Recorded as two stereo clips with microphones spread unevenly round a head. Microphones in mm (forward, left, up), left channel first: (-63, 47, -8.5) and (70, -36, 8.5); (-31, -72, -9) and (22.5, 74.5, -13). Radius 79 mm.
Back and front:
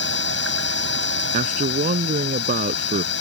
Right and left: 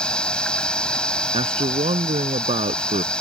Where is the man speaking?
15° left.